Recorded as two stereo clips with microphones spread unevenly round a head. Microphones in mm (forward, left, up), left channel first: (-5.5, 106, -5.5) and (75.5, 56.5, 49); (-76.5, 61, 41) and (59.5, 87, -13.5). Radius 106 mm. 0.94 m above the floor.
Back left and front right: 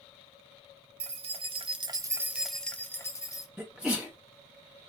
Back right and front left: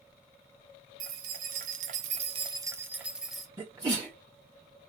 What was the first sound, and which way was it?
Keys jangling, 15° right.